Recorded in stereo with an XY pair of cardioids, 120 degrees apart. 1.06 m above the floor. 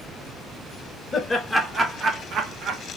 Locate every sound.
1.1 s laughter: 20° left, 0.7 m; by 2.8 s 75° right, 1.0 m